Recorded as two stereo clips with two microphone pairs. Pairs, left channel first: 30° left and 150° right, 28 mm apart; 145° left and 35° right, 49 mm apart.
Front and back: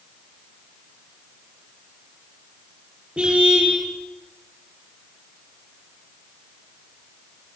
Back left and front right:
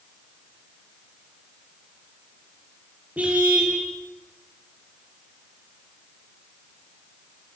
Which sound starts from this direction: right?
A car horn, at 3.2 s.